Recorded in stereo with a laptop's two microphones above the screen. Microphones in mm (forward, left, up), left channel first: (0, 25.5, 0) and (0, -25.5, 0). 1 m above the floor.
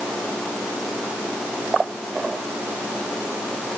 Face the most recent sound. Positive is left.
No sound to turn to.